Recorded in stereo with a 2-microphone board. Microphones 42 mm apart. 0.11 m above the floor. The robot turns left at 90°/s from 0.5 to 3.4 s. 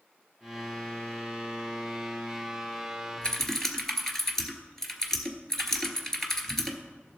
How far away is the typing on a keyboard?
About 1.3 m.